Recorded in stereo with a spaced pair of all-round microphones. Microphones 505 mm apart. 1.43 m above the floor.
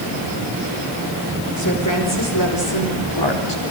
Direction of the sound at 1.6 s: 35° left (ahead or behind).